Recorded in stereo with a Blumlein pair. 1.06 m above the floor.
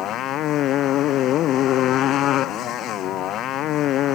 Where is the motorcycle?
35° left.